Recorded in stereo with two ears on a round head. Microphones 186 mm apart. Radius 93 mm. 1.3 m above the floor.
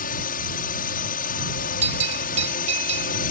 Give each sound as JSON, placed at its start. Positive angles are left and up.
{"t": 0.0, "sound": "a drone", "side_deg": 40}
{"t": 1.8, "sound": "a bell", "side_deg": -35}